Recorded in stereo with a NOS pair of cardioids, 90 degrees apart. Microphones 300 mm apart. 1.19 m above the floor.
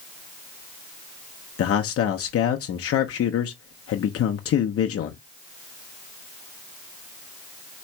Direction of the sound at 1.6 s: 50° left.